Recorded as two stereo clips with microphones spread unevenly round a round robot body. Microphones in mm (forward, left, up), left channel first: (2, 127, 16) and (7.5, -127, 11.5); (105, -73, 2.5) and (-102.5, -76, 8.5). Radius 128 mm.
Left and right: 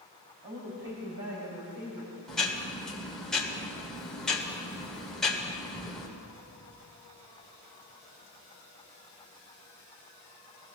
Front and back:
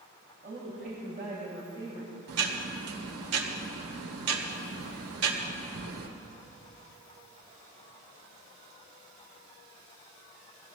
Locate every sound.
0.4 s a woman speaking: 140° right, 5 m; by 2.2 s 110° right, 5.5 m
2.3 s ticking: straight behind, 2.0 m